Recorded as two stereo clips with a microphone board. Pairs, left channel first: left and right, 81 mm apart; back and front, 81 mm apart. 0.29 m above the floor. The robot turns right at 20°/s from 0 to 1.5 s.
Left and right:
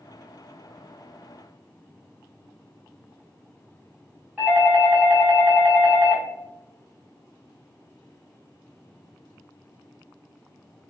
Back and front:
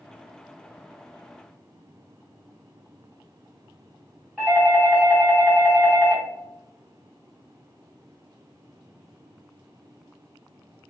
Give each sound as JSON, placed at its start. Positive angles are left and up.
{"t": 4.4, "sound": "a doorbell", "azimuth_deg": -45, "distance_m": 1.6}